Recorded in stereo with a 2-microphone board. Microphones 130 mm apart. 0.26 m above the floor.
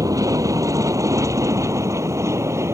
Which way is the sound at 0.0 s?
25° right (ahead or behind).